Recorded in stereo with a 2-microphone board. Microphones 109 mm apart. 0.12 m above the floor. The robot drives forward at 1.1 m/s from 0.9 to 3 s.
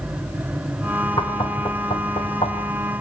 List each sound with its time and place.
1.2 s knocking: 45° left (ahead or behind), 5 m; by 2.6 s 55° left (ahead or behind), 4 m